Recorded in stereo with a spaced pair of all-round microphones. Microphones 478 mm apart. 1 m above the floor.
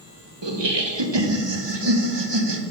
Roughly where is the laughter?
Right.